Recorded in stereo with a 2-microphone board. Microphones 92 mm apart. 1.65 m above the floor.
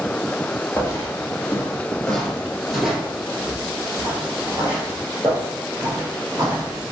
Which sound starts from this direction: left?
Footsteps, at 0.8 s.